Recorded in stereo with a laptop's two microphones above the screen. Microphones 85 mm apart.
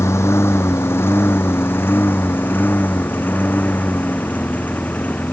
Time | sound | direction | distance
0.0 | a lawn mower | 35° left (ahead or behind) | ?